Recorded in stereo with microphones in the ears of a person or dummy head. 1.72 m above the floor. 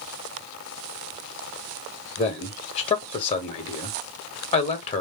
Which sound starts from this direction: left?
A man speaking, at 2.2 s.